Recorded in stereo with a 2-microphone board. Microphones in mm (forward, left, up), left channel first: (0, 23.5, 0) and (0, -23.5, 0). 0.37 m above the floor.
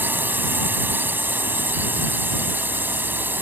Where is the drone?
45° right (ahead or behind).